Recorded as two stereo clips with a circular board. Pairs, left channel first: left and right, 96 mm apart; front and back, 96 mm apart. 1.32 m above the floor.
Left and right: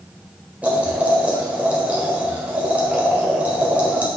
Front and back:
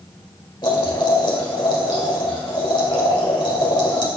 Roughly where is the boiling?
Ahead.